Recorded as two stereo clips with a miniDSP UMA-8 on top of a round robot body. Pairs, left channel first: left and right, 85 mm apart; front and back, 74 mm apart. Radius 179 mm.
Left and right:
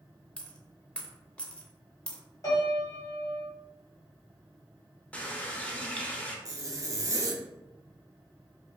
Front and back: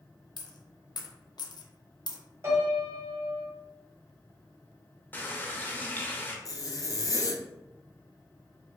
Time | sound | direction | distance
0.4 | a dropped coin | 10° left | 0.5 m
2.4 | a piano | 135° left | 1.5 m
5.1 | a running tap | 30° left | 0.7 m
6.5 | a zipper | 45° right | 0.6 m